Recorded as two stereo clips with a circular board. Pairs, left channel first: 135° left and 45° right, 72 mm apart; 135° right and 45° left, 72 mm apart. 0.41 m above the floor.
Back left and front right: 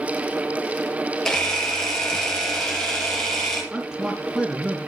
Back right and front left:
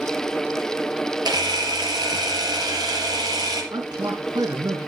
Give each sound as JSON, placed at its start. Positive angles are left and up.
{"t": 1.2, "sound": "a camera shutter", "azimuth_deg": 55, "distance_m": 5.0}
{"t": 3.7, "sound": "a man speaking", "azimuth_deg": 35, "distance_m": 4.0}